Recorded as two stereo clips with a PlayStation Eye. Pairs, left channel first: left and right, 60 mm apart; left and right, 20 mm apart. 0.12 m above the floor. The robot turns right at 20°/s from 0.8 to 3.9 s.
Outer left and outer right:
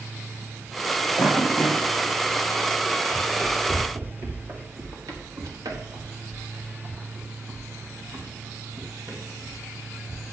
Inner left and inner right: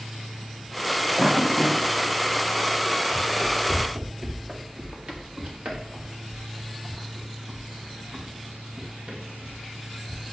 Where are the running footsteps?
20° right (ahead or behind), 2.5 m; by 10.3 s 75° right (ahead or behind), 4 m.